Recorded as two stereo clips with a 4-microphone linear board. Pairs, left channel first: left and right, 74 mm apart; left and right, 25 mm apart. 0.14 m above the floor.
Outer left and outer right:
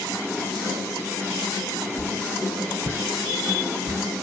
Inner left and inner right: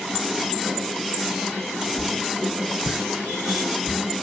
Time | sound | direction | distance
2.0 | a whoosh | 60° left (ahead or behind) | 3 m